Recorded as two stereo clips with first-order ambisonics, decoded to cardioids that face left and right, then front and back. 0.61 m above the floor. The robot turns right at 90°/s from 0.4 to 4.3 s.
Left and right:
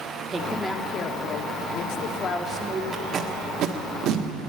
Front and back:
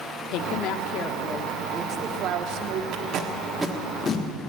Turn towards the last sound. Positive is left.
turn(degrees=-45)